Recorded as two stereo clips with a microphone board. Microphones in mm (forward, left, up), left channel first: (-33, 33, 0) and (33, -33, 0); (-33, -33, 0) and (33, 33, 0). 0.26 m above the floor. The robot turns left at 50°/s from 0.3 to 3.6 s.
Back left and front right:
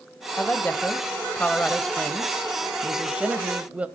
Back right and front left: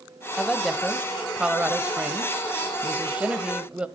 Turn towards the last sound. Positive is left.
turn(degrees=-5)